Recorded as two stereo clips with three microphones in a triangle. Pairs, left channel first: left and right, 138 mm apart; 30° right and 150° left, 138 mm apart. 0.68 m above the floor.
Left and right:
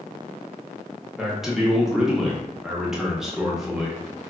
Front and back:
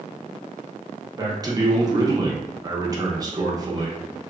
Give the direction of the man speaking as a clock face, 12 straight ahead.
6 o'clock.